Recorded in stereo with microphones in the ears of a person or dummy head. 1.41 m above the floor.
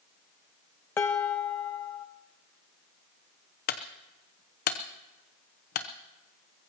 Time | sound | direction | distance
1.0 | dishes clattering | 10° left (ahead or behind) | 0.6 m
3.7 | a clunk | 45° left (ahead or behind) | 0.9 m